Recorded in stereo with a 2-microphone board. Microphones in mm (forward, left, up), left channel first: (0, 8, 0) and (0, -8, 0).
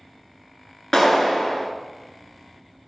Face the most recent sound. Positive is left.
turn(degrees=35)  # may be behind; listen again after turning